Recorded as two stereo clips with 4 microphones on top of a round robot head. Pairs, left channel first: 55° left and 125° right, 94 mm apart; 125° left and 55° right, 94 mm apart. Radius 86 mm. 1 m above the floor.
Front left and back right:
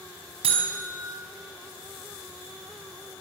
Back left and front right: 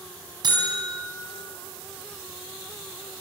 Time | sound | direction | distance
0.4 | a buzzer | 100° right | 4.5 m